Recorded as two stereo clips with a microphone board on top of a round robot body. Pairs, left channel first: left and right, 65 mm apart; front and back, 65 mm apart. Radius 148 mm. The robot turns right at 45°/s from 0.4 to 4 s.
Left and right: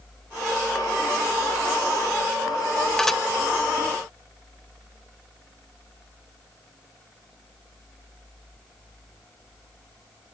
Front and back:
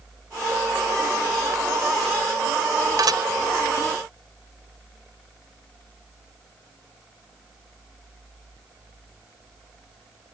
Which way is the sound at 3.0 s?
170° left.